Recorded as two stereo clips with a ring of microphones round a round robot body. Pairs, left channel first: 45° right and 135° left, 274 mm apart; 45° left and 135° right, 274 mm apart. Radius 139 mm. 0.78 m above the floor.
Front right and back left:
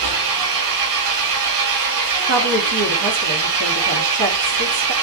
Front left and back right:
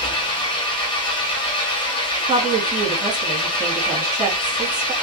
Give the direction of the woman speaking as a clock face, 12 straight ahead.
7 o'clock.